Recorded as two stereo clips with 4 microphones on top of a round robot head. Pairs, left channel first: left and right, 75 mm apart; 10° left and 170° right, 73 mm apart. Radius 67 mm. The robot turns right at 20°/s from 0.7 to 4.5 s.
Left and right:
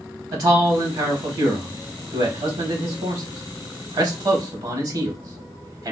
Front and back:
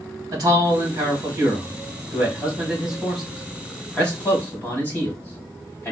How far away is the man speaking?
About 1.0 m.